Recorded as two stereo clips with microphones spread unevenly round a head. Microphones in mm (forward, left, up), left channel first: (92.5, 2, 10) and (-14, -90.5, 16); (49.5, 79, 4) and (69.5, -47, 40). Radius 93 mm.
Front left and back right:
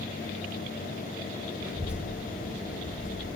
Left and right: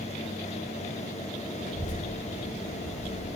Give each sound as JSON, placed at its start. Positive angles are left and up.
{"t": 1.6, "sound": "a child speaking", "azimuth_deg": 145, "distance_m": 2.5}